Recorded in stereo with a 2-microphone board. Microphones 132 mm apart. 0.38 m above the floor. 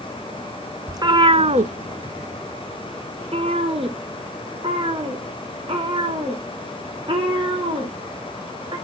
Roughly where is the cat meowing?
Right.